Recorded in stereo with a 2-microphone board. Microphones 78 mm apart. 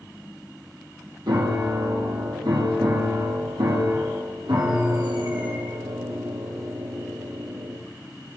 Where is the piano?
70° right (ahead or behind), 2.0 m.